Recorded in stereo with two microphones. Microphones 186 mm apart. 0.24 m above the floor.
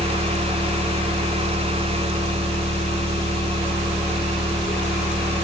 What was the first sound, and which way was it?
An engine running, 55° right (ahead or behind).